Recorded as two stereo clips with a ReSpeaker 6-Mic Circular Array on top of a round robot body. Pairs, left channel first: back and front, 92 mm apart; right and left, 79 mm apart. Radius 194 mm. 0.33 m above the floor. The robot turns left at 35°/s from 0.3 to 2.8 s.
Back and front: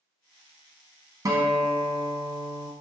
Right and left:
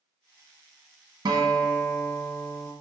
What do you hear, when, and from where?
1.2 s a guitar: 55° left, 1.0 m; by 2.7 s 5° left, 1.0 m